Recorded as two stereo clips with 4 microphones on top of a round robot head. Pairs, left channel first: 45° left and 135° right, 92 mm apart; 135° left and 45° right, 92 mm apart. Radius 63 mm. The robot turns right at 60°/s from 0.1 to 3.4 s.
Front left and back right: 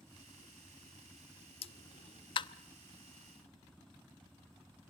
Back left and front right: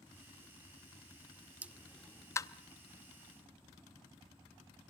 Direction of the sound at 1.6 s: 30° left.